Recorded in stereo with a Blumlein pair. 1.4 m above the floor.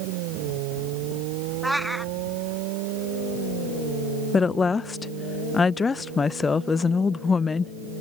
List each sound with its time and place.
1.6 s a cat meowing: straight ahead
4.3 s a woman speaking: 15° left